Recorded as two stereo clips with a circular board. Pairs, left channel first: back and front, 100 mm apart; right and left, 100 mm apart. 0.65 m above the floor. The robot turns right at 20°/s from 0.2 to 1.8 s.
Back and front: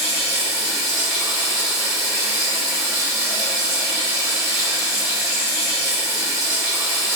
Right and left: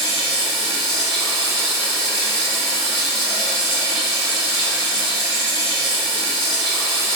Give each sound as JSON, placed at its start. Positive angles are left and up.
{"t": 0.0, "sound": "running water", "azimuth_deg": -105, "distance_m": 1.8}